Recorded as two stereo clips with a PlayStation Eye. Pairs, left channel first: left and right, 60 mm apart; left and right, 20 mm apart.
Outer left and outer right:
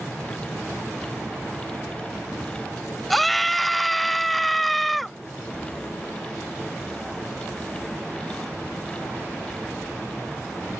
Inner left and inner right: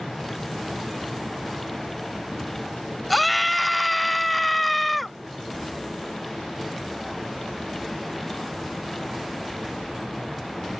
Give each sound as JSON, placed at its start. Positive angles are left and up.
{"t": 3.1, "sound": "a scream", "side_deg": 0}